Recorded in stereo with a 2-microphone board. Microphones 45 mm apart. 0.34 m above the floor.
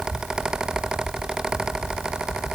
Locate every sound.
Only background noise.